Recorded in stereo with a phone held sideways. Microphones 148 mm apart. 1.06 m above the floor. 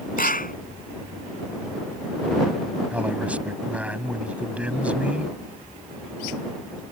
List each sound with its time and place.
0.2 s a clap: 75° left (ahead or behind)
2.9 s a man speaking: 10° right (ahead or behind)